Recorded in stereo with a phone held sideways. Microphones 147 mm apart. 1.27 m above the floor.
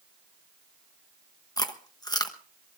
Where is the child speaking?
I don't hear a child speaking.